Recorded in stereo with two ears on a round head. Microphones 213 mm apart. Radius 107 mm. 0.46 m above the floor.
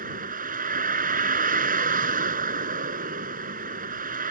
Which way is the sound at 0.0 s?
35° right (ahead or behind).